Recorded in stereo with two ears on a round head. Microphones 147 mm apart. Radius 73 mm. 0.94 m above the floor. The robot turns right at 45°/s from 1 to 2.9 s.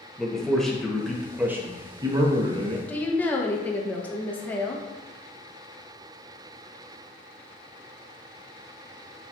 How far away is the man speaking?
About 0.7 m.